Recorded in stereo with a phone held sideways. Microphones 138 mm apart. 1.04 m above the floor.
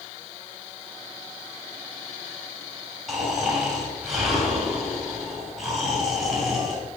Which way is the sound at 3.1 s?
Centre (ahead or behind).